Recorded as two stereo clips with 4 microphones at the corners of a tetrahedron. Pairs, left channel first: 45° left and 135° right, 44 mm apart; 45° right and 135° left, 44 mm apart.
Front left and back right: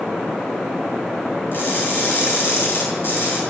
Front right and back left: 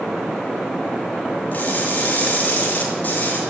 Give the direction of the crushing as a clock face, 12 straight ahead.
12 o'clock.